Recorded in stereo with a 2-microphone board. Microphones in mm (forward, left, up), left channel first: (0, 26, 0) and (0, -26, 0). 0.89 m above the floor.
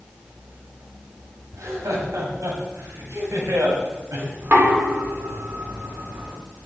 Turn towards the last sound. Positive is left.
turn(degrees=-45)  # may be behind; listen again after turning